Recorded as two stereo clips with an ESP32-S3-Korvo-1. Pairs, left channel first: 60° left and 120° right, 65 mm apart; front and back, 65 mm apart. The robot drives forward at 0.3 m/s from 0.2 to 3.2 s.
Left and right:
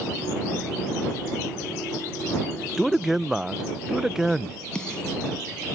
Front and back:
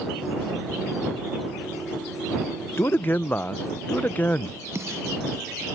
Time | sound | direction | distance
2.8 | a man speaking | 30° right | ?
4.8 | a snare drum | 140° left | ?